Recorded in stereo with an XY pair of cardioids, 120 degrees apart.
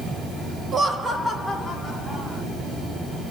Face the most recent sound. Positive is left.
turn(degrees=10)